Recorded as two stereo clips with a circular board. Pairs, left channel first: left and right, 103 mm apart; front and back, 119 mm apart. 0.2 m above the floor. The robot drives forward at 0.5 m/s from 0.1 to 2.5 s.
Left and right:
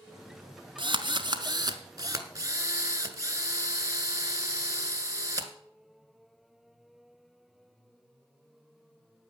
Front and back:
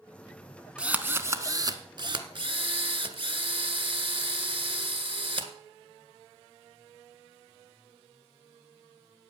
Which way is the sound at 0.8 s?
100° right.